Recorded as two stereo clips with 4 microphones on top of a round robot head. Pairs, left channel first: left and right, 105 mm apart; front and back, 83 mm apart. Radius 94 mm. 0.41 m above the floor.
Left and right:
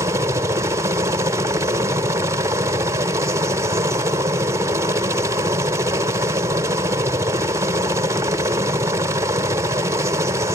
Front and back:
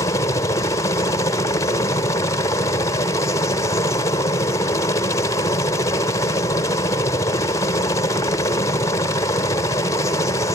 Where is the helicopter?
35° right.